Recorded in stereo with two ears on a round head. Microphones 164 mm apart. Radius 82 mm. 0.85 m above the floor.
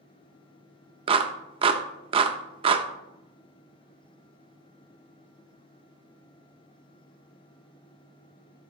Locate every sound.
1.1 s a clap: 30° right (ahead or behind), 0.6 m